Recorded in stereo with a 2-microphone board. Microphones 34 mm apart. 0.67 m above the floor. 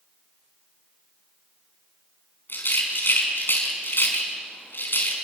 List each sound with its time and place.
2.5 s a rattle: 85° left, 4.5 m